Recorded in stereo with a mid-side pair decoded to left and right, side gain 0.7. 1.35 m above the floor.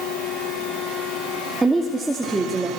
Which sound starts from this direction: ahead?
A woman speaking, at 1.6 s.